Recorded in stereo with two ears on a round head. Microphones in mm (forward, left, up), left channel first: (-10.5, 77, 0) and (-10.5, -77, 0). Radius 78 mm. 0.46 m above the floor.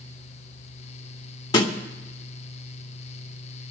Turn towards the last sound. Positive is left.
turn(degrees=25)  # may be behind; listen again after turning